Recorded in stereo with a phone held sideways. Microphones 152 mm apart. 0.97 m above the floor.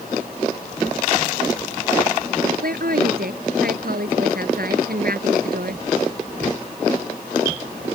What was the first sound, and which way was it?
A woman speaking, 75° right (ahead or behind).